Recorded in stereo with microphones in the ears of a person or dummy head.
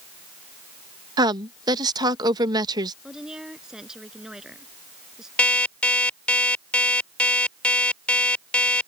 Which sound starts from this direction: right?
A woman speaking, at 1.2 s.